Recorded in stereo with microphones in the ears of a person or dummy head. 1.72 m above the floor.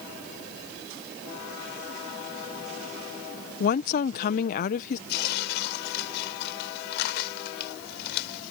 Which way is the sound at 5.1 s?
65° left (ahead or behind).